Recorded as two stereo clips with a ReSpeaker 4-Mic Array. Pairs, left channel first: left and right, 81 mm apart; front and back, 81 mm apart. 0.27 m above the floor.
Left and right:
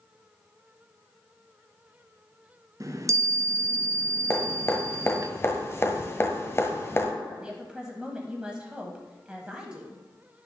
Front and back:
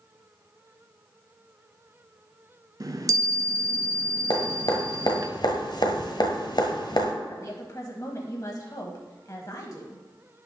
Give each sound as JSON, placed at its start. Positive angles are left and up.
{"t": 2.8, "sound": "a chime", "azimuth_deg": -140, "distance_m": 0.5}
{"t": 4.3, "sound": "dripping", "azimuth_deg": 25, "distance_m": 1.3}
{"t": 7.3, "sound": "a woman speaking", "azimuth_deg": -15, "distance_m": 1.2}